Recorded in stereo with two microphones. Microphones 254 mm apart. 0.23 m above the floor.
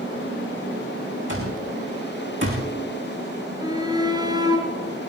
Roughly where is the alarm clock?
Right.